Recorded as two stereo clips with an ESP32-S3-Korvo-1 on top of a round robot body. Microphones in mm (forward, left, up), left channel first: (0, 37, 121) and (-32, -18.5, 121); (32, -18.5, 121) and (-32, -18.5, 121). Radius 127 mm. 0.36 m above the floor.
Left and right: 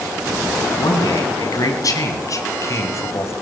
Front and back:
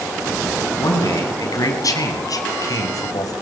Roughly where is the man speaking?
Ahead left.